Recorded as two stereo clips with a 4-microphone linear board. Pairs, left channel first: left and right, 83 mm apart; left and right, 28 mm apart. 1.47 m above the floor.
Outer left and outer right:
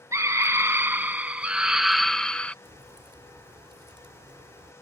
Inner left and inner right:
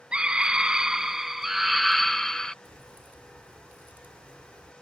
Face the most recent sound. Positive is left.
turn(degrees=-85)